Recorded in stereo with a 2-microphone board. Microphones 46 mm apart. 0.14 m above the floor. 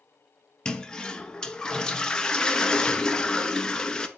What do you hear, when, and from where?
0.7 s a toilet flushing: 15° left (ahead or behind), 0.6 m